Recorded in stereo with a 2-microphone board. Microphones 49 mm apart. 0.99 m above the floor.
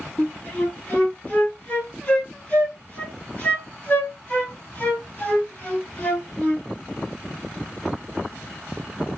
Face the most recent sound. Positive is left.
turn(degrees=35)  # may be behind; listen again after turning